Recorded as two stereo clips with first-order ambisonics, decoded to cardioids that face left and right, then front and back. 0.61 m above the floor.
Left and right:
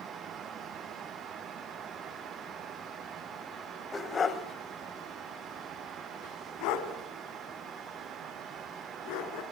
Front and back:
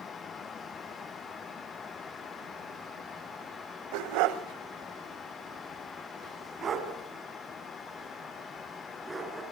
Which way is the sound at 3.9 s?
170° left.